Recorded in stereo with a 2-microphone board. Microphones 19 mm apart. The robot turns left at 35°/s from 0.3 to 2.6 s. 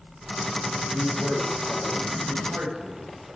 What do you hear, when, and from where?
0.9 s a man speaking: 35° right (ahead or behind), 8.5 m; by 3.4 s 85° right, 8.5 m